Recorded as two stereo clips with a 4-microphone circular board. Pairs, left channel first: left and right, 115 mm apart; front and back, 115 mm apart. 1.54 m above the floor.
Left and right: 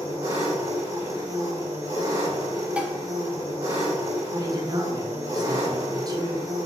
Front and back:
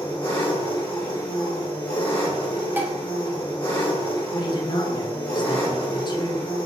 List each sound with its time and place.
0.0 s an engine running: 40° right, 1.2 m
2.8 s dishes clattering: 150° right, 0.5 m
4.3 s a man speaking: 40° right, 0.6 m